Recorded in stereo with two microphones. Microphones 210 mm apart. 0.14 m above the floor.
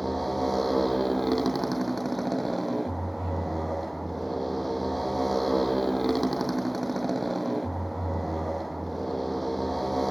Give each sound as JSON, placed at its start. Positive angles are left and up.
{"t": 0.0, "sound": "a motorcycle", "side_deg": 0}